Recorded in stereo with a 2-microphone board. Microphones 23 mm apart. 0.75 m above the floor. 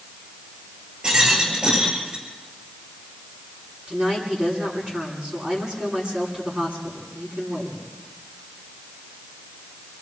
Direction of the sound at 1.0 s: 45° right (ahead or behind).